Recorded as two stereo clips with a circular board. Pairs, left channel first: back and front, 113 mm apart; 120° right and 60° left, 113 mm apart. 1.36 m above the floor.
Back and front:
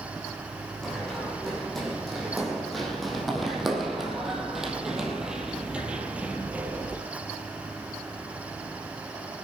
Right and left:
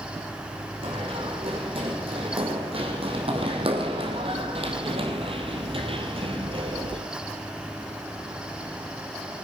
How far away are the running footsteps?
About 5 m.